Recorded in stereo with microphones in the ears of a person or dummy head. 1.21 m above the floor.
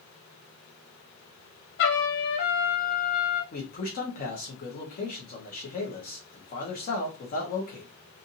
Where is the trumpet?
60° left (ahead or behind), 0.9 m.